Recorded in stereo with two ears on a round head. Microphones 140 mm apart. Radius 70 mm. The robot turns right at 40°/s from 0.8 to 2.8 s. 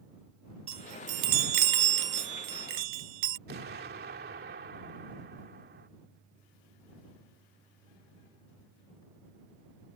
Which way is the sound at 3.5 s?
70° right (ahead or behind).